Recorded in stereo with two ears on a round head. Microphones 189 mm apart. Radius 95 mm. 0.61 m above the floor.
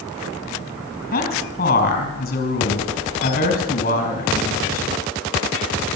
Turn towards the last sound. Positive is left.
turn(degrees=40)  # may be behind; listen again after turning